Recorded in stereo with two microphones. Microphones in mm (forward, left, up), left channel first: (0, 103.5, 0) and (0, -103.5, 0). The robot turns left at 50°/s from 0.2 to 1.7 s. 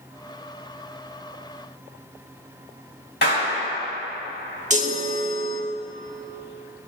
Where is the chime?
35° right (ahead or behind), 0.9 m.